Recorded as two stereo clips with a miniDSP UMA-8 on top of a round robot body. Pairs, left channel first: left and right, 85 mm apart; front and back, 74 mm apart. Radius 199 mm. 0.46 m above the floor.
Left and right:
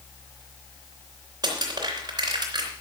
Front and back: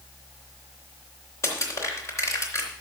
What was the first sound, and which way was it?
Crushing, 50° right.